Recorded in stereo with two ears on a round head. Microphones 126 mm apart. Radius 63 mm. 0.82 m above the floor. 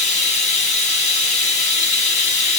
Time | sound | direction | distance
0.0 | running water | 50° left (ahead or behind) | 0.8 m